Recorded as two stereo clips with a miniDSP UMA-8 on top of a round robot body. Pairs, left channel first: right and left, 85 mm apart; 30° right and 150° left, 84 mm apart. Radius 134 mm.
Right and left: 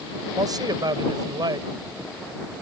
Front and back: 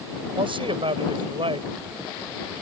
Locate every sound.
0.3 s a man speaking: 135° left